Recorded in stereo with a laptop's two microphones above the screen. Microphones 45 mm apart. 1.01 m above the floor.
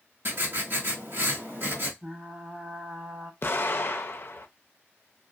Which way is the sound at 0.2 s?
55° right (ahead or behind).